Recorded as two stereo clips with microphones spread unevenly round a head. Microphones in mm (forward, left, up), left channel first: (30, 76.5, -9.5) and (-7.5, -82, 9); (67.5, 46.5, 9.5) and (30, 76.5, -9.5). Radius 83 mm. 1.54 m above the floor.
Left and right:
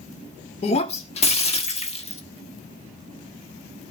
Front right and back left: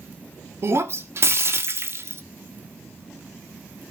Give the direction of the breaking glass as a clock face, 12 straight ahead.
8 o'clock.